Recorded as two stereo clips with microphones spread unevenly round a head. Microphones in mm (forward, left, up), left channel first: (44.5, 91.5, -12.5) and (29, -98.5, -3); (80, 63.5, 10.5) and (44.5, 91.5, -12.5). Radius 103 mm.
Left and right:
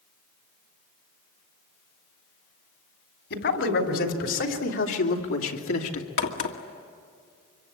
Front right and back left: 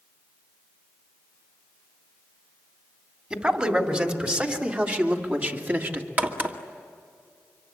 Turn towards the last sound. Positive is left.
turn(degrees=85)